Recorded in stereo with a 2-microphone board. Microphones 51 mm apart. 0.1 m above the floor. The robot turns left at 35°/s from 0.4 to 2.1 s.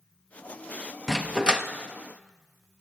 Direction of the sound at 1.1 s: 10° right (ahead or behind).